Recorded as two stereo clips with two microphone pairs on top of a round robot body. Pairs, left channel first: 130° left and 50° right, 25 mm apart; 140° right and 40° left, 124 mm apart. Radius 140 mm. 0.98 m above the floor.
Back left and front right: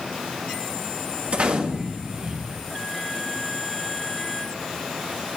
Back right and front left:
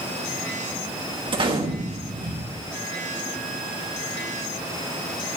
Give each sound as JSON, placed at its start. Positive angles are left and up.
{"t": 1.3, "sound": "a gunshot", "azimuth_deg": -10, "distance_m": 1.4}